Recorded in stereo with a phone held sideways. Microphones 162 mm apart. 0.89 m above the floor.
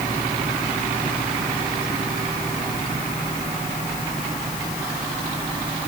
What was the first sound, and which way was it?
Only background noise.